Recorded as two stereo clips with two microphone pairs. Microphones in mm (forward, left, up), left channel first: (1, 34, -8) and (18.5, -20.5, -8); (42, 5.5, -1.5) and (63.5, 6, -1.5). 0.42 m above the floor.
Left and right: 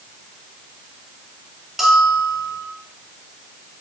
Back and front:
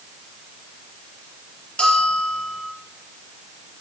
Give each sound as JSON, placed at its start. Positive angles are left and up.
{"t": 1.8, "sound": "a bell", "azimuth_deg": -160, "distance_m": 4.5}